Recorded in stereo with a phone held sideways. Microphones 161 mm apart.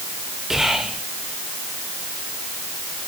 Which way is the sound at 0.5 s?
Centre (ahead or behind).